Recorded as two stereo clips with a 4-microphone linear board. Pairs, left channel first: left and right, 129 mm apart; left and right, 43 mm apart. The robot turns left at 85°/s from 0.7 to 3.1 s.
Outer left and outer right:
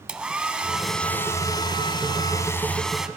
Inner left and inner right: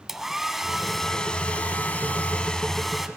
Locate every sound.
0.1 s a hair dryer: 165° right, 0.8 m; by 3.1 s 10° right, 0.8 m